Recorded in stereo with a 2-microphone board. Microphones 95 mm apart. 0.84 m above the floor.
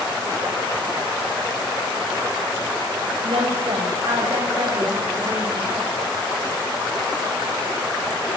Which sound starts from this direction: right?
A woman speaking, at 3.2 s.